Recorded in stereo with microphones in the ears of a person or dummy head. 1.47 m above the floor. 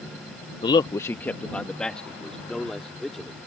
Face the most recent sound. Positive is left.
turn(degrees=0)  # may be behind; listen again after turning